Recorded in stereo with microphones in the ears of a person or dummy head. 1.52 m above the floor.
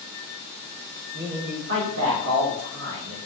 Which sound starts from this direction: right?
A man speaking, at 1.1 s.